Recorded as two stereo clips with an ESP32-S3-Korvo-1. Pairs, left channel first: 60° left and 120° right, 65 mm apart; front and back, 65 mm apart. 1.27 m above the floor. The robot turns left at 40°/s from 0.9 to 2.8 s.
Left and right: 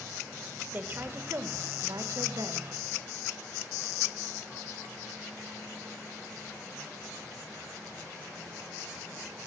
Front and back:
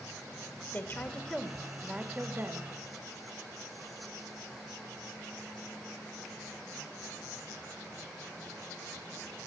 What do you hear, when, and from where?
0.7 s a woman speaking: 55° right, 2.5 m; by 2.7 s 130° right, 2.5 m